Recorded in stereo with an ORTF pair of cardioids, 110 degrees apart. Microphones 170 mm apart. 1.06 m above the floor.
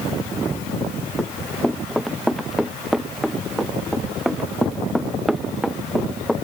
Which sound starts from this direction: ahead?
Running footsteps, at 1.2 s.